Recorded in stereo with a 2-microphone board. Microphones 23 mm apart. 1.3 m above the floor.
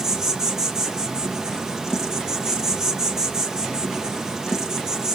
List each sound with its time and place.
0.0 s an insect: 30° right (ahead or behind), 0.8 m